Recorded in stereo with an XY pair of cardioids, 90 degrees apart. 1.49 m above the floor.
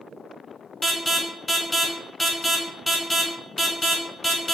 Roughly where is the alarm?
Ahead.